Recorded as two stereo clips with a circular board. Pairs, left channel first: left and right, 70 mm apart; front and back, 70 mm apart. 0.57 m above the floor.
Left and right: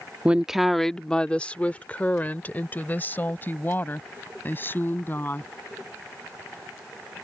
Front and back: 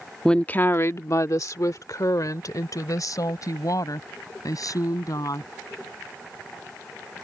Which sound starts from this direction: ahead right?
A woman speaking, at 0.2 s.